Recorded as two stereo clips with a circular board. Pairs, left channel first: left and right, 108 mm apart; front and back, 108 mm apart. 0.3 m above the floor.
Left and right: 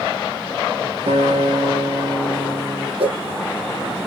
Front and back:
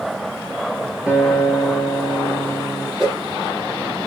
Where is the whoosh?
95° right, 7.5 m.